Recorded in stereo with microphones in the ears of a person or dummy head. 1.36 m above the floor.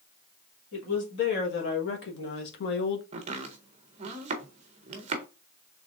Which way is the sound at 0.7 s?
70° left (ahead or behind).